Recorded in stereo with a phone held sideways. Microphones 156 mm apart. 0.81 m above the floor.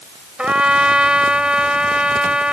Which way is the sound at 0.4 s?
5° right (ahead or behind).